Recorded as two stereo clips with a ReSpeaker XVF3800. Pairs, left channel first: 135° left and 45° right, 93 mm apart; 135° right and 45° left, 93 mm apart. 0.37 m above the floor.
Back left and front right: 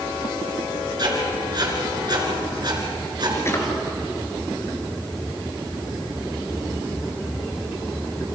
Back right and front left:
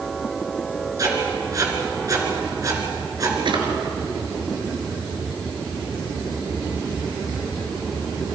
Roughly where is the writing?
Ahead.